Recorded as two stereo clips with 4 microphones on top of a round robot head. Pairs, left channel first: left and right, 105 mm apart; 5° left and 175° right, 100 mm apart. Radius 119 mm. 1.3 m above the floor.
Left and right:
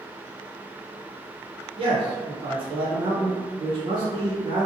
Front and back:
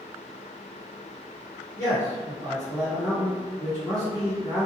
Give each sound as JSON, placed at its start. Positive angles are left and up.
{"t": 1.8, "sound": "a man speaking", "azimuth_deg": -55, "distance_m": 0.7}